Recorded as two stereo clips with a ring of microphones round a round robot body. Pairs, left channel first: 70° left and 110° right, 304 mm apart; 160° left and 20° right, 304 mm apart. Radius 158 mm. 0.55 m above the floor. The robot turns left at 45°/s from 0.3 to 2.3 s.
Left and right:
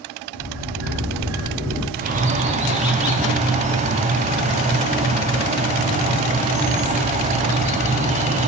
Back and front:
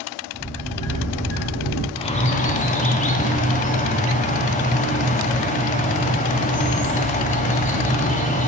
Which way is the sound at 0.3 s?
110° right.